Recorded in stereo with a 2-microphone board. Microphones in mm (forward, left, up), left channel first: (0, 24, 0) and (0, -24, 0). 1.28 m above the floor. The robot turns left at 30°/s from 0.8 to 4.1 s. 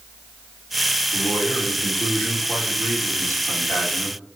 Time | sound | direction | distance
1.1 | a man speaking | 130° left | 1.8 m